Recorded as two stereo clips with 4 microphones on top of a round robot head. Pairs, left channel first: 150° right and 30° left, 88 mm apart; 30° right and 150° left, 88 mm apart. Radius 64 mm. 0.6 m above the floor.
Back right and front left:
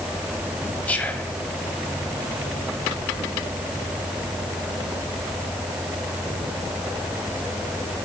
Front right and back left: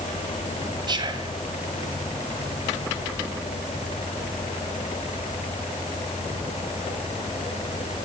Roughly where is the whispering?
Behind left.